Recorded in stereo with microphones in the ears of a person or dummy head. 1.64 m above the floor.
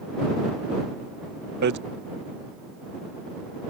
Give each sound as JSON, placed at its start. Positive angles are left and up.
{"t": 1.6, "sound": "hammering", "side_deg": -60}